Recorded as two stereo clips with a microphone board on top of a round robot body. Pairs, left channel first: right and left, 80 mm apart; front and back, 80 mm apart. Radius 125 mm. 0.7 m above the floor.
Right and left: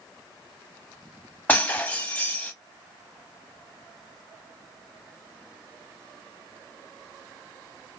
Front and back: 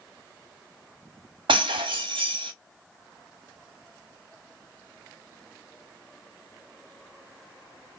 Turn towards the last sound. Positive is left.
turn(degrees=-160)